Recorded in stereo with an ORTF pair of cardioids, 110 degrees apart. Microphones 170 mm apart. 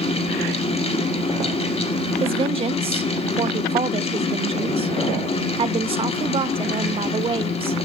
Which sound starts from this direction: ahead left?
A fan, at 0.0 s.